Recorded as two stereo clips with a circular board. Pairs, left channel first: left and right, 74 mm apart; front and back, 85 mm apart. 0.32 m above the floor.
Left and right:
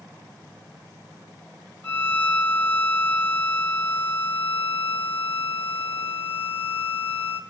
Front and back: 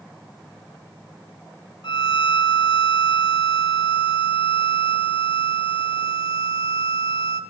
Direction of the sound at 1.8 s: 25° left.